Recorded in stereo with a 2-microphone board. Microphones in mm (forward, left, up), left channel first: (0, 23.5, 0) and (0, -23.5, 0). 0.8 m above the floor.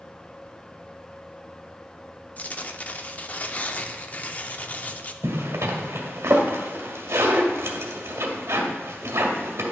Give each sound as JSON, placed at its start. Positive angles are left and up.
{"t": 2.4, "sound": "tearing paper", "side_deg": 35, "distance_m": 0.5}
{"t": 5.2, "sound": "a zipper", "side_deg": -75, "distance_m": 1.5}